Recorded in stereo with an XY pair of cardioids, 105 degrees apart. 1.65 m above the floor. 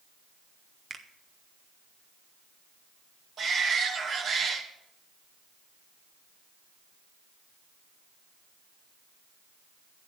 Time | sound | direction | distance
0.9 | a finger snap | 40° right | 1.3 m
3.4 | a shout | 60° right | 2.5 m